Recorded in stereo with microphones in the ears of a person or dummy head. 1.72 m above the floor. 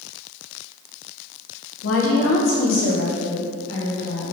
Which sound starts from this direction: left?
A woman speaking, at 1.8 s.